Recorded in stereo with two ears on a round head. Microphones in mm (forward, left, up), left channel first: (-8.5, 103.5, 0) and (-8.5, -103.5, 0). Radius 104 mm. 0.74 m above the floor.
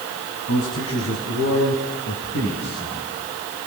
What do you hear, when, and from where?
0.5 s a man speaking: 70° left (ahead or behind), 6 m; by 3.0 s 50° left (ahead or behind), 8.5 m